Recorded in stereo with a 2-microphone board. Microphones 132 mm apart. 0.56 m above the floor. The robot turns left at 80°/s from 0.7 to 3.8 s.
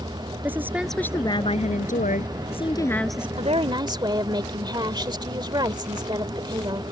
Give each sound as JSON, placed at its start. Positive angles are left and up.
{"t": 0.4, "sound": "a woman speaking", "azimuth_deg": -165}
{"t": 3.4, "sound": "a woman speaking", "azimuth_deg": -105}